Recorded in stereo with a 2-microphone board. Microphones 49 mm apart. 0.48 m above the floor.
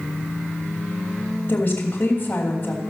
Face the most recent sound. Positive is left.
turn(degrees=35)  # may be behind; listen again after turning